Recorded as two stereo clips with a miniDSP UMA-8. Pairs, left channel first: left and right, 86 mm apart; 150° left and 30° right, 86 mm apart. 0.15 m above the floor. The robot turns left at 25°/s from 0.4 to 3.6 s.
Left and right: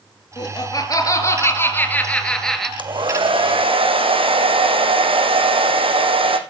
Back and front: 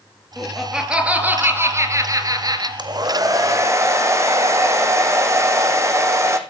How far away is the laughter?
About 3.5 m.